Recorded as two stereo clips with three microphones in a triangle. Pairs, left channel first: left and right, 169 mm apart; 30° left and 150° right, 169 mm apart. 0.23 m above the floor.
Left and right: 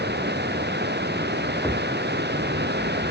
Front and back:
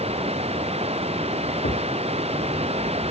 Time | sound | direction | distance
0.0 | running water | 95° right | ?
1.6 | a thud | 5° right | ?